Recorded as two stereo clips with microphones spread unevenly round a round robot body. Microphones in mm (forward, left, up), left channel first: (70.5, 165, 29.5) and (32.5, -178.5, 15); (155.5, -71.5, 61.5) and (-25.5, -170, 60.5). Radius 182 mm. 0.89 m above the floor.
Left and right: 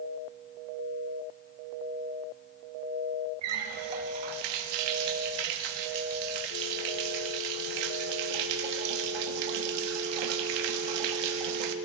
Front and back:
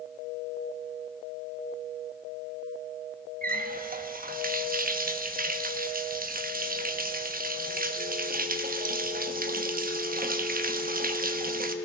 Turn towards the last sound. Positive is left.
turn(degrees=-100)